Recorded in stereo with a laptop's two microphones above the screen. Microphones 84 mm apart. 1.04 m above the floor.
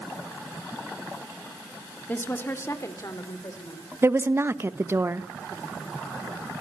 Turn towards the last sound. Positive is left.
turn(degrees=-30)  # may be behind; listen again after turning